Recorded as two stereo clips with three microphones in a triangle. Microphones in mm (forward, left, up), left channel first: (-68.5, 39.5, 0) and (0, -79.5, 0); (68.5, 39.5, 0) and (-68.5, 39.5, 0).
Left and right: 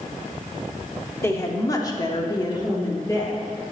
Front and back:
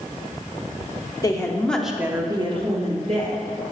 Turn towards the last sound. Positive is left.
turn(degrees=-175)